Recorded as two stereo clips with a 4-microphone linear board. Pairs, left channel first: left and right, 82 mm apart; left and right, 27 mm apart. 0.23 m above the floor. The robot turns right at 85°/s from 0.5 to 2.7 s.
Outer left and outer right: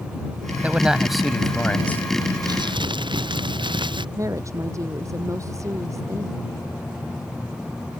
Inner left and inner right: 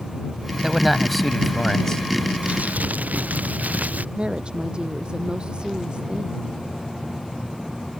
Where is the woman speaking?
40° right (ahead or behind).